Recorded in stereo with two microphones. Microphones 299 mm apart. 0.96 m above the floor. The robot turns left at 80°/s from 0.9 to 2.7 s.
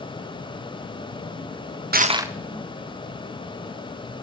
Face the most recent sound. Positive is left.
turn(degrees=155)